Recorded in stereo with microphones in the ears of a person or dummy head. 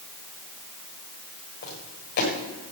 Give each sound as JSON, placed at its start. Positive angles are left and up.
{"t": 1.6, "sound": "footsteps", "side_deg": 50, "distance_m": 7.0}